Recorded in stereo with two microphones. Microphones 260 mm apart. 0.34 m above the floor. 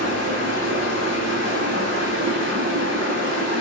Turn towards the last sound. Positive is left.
turn(degrees=-50)  # may be behind; listen again after turning